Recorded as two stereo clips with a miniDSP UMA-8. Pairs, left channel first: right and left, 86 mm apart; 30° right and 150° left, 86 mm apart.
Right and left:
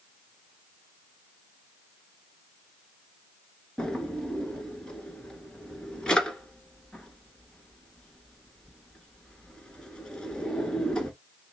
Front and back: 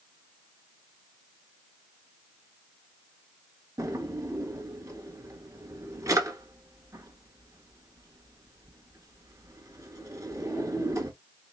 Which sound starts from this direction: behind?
A drawer, at 3.8 s.